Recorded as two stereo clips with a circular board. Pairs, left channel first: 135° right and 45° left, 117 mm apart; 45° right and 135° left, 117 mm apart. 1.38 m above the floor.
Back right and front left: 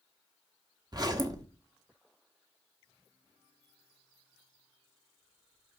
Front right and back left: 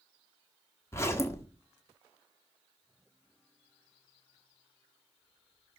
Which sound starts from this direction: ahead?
A zipper, at 0.9 s.